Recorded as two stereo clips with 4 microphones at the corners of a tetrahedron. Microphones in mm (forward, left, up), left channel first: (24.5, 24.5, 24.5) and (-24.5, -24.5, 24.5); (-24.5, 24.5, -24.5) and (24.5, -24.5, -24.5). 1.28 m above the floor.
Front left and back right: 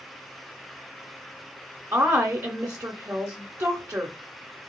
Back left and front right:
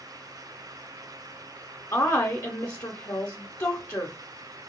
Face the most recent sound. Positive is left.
turn(degrees=170)